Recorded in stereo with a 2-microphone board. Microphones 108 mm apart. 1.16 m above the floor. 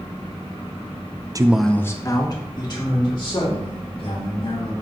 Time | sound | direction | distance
1.4 | a man speaking | 35° right (ahead or behind) | 0.5 m